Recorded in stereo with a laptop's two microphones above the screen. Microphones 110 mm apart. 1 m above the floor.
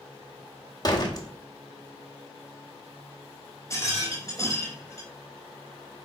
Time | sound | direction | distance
0.8 | a door slam | 40° left (ahead or behind) | 1.4 m
3.7 | a rattle | 30° left (ahead or behind) | 3 m